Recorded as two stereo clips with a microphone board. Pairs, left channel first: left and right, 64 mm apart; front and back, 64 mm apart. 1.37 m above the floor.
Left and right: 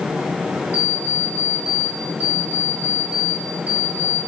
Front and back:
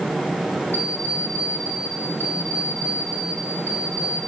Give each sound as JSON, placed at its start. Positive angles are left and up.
{"t": 0.7, "sound": "an alarm clock", "azimuth_deg": 130, "distance_m": 7.5}